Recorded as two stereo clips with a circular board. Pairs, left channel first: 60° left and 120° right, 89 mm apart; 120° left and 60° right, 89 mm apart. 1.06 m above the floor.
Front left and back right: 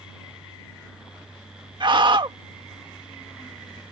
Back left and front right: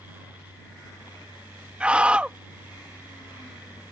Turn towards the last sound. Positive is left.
turn(degrees=-135)